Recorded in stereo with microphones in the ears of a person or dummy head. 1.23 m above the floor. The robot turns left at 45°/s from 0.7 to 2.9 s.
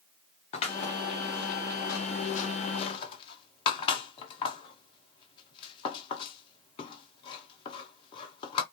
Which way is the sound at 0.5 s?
30° left (ahead or behind).